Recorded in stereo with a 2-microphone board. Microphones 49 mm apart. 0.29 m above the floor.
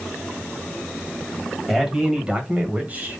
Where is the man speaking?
5° right (ahead or behind), 1.6 m; by 3.2 s 35° right (ahead or behind), 1.7 m.